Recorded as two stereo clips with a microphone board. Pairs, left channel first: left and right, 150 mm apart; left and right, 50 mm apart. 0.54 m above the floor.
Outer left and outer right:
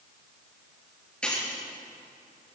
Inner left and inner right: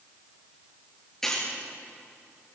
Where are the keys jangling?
10° left (ahead or behind), 7.5 m.